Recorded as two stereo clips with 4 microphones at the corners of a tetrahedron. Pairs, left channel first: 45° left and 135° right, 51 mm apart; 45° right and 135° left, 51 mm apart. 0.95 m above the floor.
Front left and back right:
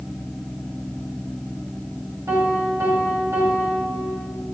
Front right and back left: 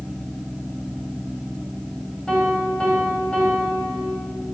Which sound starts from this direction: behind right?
A piano, at 2.3 s.